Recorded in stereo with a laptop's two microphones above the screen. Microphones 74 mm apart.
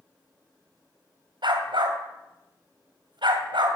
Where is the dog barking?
75° right (ahead or behind), 2 m.